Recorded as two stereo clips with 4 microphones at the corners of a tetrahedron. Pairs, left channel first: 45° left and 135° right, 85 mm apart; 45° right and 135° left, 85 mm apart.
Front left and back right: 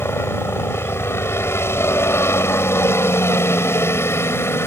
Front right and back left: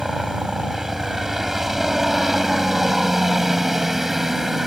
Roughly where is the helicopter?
Ahead left.